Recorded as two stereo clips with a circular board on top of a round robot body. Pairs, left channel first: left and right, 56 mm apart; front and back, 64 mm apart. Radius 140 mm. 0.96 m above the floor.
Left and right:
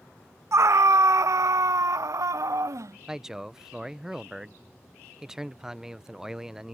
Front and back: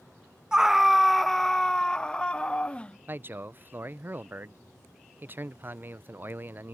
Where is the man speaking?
160° right.